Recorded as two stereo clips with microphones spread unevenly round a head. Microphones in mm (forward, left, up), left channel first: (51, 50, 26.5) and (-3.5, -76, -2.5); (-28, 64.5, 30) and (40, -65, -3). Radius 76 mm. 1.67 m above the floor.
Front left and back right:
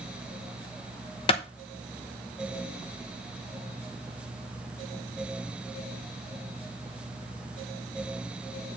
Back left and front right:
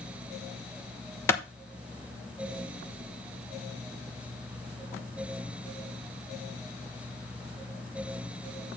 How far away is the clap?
About 0.9 m.